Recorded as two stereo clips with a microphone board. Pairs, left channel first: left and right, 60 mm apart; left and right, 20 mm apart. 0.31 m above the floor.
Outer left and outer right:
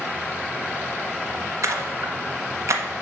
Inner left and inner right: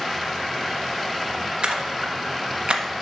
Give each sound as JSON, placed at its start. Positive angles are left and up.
{"t": 1.6, "sound": "a splash", "side_deg": -55, "distance_m": 1.2}